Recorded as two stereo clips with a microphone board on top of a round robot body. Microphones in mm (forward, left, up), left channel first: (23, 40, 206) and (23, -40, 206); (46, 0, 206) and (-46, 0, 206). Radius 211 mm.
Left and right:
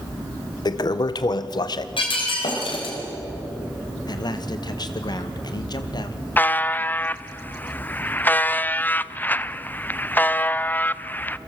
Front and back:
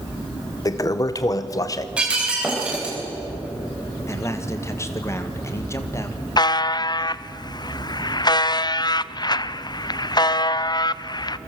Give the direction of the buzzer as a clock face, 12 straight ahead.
11 o'clock.